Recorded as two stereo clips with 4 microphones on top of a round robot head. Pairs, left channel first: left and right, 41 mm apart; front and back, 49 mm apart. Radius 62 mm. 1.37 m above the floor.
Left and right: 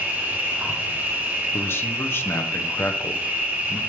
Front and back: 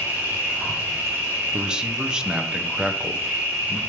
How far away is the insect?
About 3 m.